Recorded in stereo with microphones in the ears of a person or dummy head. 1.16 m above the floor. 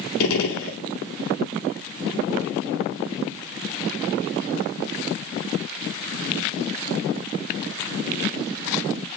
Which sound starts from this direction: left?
A gunshot, at 0.2 s.